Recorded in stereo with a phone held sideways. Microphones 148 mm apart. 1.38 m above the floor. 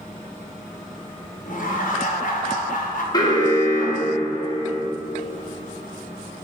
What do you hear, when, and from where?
1.5 s laughter: 60° left (ahead or behind), 0.7 m
3.1 s an alarm: 30° left (ahead or behind), 0.7 m